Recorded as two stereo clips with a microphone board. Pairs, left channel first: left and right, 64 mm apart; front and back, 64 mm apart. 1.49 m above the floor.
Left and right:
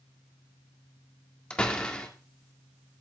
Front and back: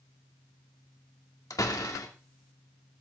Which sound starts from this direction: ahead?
A door slam, at 1.5 s.